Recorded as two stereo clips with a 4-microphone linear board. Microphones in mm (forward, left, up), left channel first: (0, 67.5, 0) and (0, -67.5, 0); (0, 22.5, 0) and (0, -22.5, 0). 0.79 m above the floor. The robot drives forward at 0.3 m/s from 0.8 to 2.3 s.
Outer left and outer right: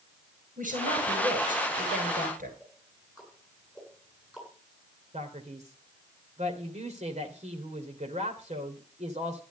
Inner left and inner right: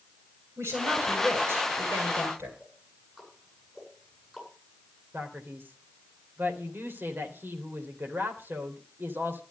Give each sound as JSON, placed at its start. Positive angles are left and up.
{"t": 0.6, "sound": "a woman speaking", "side_deg": -80, "distance_m": 10.0}
{"t": 2.6, "sound": "ticking", "side_deg": -5, "distance_m": 8.5}
{"t": 5.1, "sound": "a man speaking", "side_deg": -60, "distance_m": 3.0}